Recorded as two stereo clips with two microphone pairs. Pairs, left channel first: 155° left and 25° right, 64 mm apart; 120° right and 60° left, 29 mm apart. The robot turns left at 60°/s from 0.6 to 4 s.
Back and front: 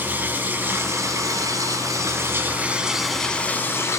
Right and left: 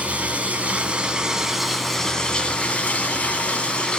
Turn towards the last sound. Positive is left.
turn(degrees=-175)